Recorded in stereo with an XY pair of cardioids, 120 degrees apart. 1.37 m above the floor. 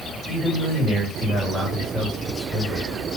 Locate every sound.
0.3 s a man speaking: 20° right, 2.5 m